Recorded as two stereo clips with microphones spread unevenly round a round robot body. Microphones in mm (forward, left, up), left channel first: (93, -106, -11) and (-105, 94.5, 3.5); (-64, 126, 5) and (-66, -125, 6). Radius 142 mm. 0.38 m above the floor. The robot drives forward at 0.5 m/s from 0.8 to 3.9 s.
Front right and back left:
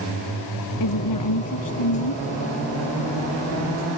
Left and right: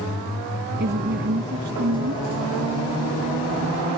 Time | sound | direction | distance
0.8 | a woman speaking | 35° right | ?